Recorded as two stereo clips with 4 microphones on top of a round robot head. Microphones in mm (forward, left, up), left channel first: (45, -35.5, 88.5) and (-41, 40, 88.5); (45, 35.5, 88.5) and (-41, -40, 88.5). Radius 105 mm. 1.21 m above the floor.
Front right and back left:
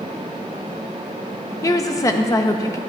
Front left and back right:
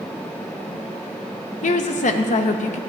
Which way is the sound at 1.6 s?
25° left.